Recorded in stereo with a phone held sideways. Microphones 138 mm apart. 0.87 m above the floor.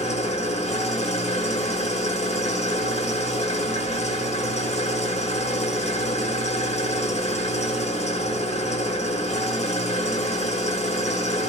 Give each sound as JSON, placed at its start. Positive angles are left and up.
{"t": 0.0, "sound": "an engine running", "side_deg": 55, "distance_m": 0.9}